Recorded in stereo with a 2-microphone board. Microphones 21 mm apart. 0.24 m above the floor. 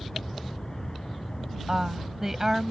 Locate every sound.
0.0 s an aircraft: 35° left (ahead or behind)
1.7 s a woman speaking: 20° right (ahead or behind)